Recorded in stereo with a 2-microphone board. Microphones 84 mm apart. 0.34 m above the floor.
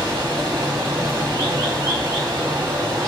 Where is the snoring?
I don't hear snoring.